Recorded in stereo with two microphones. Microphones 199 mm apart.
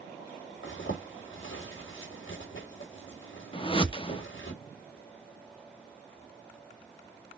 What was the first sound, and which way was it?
A zipper, 80° left.